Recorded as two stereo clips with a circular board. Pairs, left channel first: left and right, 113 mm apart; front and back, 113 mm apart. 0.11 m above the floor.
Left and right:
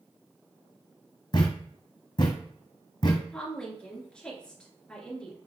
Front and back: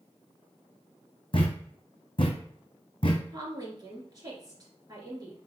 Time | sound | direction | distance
1.3 | a thud | 40° left | 1.1 m
3.3 | a woman speaking | 165° left | 1.9 m